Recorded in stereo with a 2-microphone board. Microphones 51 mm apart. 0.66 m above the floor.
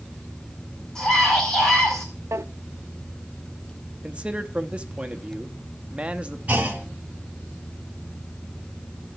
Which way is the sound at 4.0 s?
20° right (ahead or behind).